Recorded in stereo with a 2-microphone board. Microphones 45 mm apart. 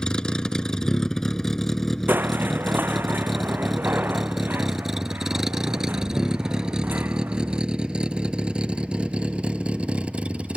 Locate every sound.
0.0 s a vehicle: 20° left (ahead or behind); by 10.6 s 30° right (ahead or behind)
2.1 s crushing: 50° right (ahead or behind)